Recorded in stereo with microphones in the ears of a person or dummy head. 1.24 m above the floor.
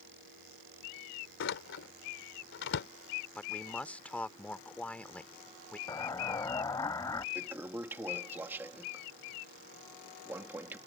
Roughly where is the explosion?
Left.